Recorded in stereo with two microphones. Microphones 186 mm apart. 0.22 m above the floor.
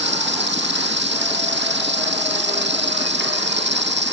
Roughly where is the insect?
Right.